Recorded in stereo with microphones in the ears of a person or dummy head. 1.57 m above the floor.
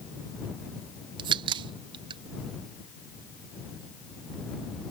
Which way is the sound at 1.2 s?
30° right (ahead or behind).